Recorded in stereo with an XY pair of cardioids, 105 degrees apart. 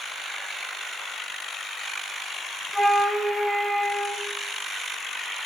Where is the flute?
Straight ahead, 0.8 m.